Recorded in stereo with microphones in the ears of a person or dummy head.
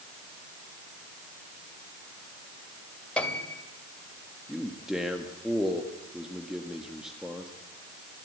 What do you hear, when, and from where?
3.2 s a piano: 5° left (ahead or behind), 2.5 m
4.5 s a man speaking: 5° right (ahead or behind), 1.7 m